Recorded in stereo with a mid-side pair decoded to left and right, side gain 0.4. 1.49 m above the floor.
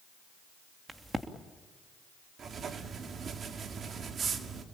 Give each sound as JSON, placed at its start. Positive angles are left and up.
{"t": 0.9, "sound": "a crack", "azimuth_deg": -25, "distance_m": 3.0}
{"t": 2.4, "sound": "writing", "azimuth_deg": -55, "distance_m": 2.0}